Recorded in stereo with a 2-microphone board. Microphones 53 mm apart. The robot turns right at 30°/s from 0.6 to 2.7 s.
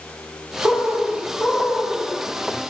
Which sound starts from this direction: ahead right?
A bird, at 0.6 s.